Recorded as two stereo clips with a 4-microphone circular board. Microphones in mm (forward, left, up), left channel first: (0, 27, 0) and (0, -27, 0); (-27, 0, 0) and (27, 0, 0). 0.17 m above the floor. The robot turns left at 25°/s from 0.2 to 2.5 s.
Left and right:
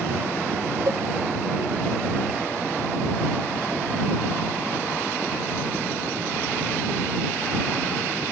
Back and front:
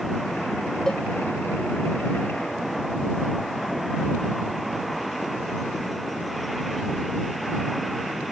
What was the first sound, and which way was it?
A cowbell, 100° right.